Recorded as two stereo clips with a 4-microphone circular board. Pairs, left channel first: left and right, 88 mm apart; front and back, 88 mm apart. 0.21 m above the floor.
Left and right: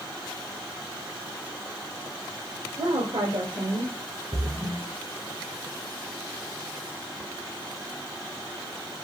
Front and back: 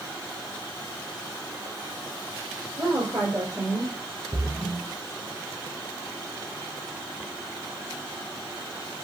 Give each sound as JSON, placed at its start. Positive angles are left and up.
{"t": 2.8, "sound": "a woman speaking", "azimuth_deg": -125, "distance_m": 4.0}
{"t": 4.3, "sound": "a splash", "azimuth_deg": -115, "distance_m": 5.0}